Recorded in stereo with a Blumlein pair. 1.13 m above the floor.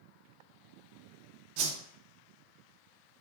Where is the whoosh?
45° right, 0.5 m.